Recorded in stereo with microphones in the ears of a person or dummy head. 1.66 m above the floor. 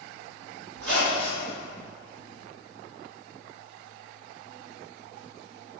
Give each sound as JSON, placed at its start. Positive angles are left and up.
{"t": 0.7, "sound": "a squeak", "side_deg": -60, "distance_m": 1.6}